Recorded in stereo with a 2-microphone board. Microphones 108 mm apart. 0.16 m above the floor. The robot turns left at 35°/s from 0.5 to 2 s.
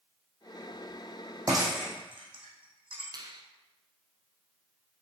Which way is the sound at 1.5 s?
30° right (ahead or behind).